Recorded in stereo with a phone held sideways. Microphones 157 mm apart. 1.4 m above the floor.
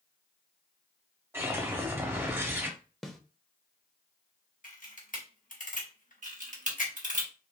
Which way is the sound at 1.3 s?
15° right (ahead or behind).